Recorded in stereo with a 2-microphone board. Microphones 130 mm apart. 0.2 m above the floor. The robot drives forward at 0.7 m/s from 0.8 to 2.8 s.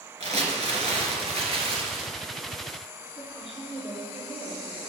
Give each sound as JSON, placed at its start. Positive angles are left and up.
{"t": 0.2, "sound": "crumpling", "side_deg": -60, "distance_m": 1.9}
{"t": 3.2, "sound": "a woman speaking", "side_deg": -50, "distance_m": 3.0}